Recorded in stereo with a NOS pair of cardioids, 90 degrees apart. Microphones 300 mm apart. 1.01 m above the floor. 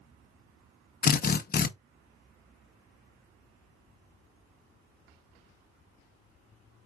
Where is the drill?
30° left, 0.7 m.